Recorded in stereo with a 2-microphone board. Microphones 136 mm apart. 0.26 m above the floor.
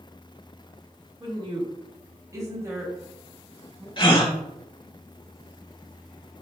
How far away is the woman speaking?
About 1.6 m.